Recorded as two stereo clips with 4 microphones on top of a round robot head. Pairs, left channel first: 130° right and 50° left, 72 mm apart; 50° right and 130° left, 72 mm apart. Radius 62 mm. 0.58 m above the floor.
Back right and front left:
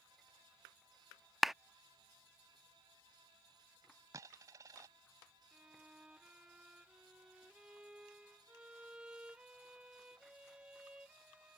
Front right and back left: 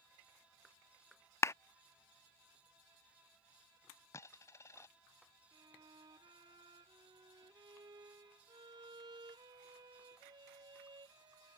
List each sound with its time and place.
1.4 s a clap: 35° right
4.1 s a dropped coin: 5° left
5.5 s a violin: 125° left